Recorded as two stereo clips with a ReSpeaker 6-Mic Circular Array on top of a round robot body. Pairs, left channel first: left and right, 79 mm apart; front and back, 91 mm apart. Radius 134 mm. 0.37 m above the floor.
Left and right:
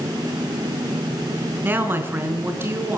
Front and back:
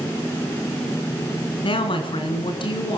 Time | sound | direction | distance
1.6 | a woman speaking | 25° right | 4.5 m